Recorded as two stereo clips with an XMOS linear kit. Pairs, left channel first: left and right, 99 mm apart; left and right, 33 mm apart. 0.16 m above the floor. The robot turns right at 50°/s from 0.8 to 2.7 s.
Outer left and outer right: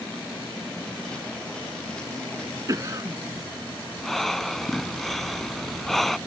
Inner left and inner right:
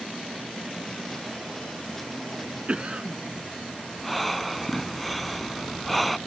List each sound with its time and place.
2.7 s a cough: 35° right (ahead or behind)
4.0 s breathing: 5° left (ahead or behind)